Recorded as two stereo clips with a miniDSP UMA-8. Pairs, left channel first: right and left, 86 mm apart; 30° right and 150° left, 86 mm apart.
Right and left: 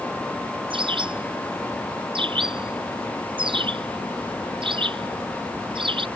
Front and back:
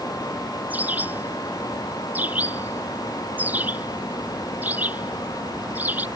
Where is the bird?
80° left.